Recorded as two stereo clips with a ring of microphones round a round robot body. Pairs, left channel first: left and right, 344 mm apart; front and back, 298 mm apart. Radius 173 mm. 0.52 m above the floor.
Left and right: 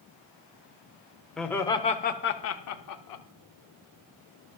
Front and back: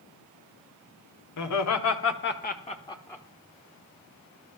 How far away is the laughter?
About 1.3 m.